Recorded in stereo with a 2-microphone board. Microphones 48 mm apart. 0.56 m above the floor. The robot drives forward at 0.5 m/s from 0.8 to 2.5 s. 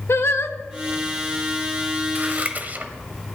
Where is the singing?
60° left (ahead or behind), 0.8 m.